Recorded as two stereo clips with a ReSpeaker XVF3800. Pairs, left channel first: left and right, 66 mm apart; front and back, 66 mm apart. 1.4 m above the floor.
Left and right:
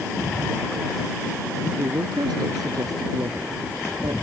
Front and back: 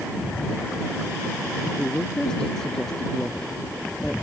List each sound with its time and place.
1.8 s a woman speaking: 80° right